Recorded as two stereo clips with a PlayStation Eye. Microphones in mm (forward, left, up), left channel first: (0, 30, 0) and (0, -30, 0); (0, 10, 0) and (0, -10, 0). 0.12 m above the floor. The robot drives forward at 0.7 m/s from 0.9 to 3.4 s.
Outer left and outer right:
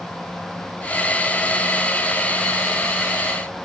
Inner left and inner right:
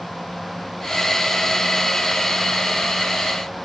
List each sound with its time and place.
Only background noise.